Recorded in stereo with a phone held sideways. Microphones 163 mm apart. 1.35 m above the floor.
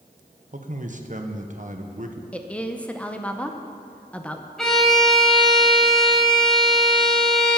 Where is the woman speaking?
5° left (ahead or behind), 0.7 m.